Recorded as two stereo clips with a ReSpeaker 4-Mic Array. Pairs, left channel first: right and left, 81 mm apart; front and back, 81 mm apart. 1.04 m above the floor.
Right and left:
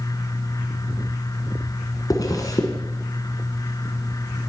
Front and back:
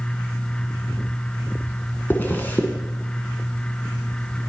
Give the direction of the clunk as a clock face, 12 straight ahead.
No clunk in this recording.